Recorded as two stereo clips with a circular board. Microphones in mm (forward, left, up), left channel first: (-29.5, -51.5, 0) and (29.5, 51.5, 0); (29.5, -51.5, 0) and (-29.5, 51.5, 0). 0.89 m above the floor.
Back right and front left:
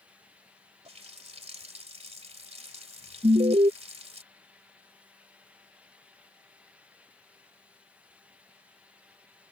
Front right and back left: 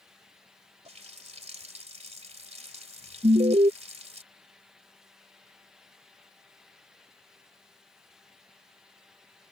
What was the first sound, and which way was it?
A running tap, 90° left.